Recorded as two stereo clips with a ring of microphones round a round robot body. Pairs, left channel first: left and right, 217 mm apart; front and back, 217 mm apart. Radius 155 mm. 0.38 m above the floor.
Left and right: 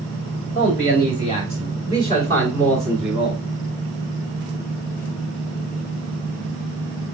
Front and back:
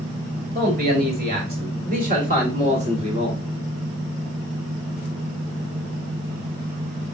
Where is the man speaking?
145° left, 2.5 m; by 3.4 s 150° right, 1.5 m.